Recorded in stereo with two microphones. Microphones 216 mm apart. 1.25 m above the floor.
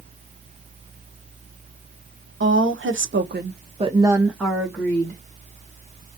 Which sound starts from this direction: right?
A woman speaking, at 2.4 s.